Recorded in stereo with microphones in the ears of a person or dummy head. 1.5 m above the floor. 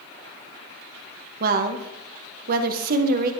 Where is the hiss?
I don't hear a hiss.